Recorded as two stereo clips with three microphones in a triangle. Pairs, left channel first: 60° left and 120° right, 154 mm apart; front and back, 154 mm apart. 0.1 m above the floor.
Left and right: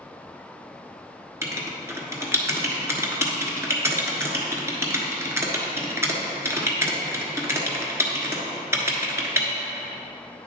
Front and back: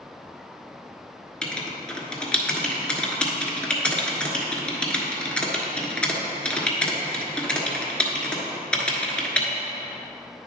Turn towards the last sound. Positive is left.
turn(degrees=-75)